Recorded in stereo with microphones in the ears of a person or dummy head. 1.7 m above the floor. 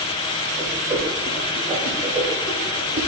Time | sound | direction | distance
0.6 | a whoosh | 15° right (ahead or behind) | 1.8 m